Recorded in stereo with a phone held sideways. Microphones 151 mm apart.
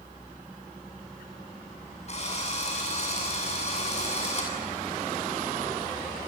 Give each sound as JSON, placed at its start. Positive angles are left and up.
{"t": 2.1, "sound": "a drill", "side_deg": 45, "distance_m": 7.5}